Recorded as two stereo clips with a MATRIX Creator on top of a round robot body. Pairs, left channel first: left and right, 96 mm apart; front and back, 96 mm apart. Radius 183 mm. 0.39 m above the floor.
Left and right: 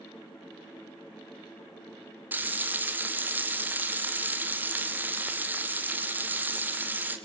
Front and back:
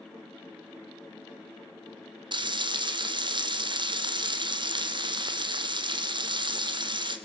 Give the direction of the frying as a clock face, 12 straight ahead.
5 o'clock.